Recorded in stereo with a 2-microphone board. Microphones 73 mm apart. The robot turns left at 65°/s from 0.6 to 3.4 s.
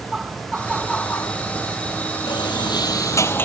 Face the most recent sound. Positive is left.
turn(degrees=30)